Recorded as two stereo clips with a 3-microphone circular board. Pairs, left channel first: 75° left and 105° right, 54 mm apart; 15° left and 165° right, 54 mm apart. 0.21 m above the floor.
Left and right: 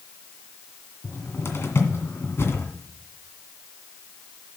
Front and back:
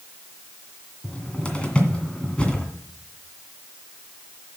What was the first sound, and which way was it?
A cupboard door, 80° left.